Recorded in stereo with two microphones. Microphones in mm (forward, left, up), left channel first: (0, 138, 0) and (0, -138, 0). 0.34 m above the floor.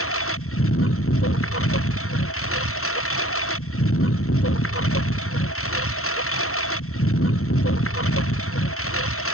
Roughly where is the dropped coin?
I don't hear a dropped coin.